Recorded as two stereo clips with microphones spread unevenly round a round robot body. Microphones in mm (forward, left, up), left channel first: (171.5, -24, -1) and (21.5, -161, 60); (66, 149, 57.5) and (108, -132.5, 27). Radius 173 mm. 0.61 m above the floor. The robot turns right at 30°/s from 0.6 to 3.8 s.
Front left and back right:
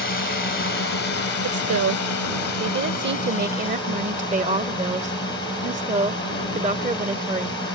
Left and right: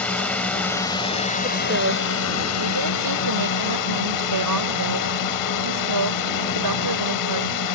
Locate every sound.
0.0 s a drone: 15° left; by 7.8 s 110° left
1.4 s a woman speaking: 150° right; by 7.6 s 80° right